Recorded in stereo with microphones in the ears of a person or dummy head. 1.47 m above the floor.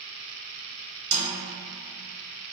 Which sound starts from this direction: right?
A snare drum, at 1.1 s.